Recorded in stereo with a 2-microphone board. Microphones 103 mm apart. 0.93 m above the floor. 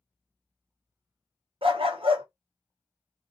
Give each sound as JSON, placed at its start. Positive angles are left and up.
{"t": 1.6, "sound": "a dog barking", "side_deg": -65, "distance_m": 0.6}